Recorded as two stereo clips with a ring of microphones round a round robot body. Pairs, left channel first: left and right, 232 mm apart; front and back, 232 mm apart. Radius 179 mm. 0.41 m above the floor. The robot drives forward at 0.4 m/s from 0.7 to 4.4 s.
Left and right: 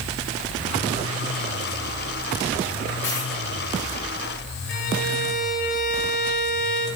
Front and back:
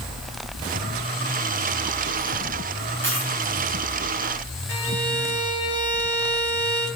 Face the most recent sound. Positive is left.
turn(degrees=140)